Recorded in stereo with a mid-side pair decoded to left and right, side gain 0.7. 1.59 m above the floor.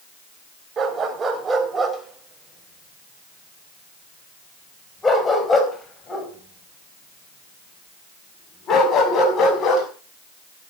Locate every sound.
0.8 s a dog barking: 25° right, 3.5 m; by 9.9 s 40° left, 6 m